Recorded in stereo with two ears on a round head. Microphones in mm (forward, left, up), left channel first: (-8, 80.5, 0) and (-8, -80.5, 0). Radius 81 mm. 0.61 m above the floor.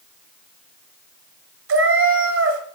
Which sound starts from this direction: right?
A cat meowing, at 1.7 s.